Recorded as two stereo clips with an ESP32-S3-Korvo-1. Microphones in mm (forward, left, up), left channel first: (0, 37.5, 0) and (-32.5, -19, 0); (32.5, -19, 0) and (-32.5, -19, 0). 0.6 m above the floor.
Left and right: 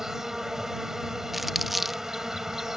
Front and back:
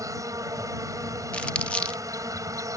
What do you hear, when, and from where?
0.0 s an insect: 155° left
1.3 s crumpling: 35° right